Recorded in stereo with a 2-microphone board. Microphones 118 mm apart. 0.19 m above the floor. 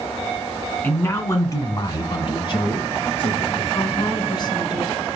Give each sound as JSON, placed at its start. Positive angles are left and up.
{"t": 0.8, "sound": "a man speaking", "side_deg": 15, "distance_m": 1.5}
{"t": 3.7, "sound": "a woman speaking", "side_deg": 40, "distance_m": 1.6}